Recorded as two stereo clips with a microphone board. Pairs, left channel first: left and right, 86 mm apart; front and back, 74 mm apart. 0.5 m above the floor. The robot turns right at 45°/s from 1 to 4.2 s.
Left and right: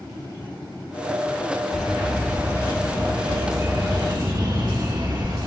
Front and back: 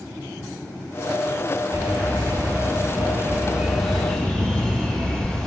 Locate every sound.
1.7 s a bird: 175° left, 3 m; by 5.5 s 75° right, 3 m